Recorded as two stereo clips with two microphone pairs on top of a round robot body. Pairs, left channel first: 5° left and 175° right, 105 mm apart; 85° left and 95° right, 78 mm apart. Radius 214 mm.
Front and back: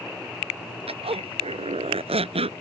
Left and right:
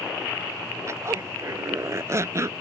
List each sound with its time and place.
0.9 s a zipper: 150° right